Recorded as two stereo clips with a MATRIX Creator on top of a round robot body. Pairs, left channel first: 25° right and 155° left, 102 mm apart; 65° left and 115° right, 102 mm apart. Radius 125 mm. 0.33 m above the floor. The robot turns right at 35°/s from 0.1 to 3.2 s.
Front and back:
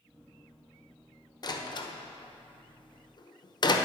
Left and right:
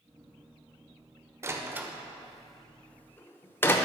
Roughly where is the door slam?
Ahead right.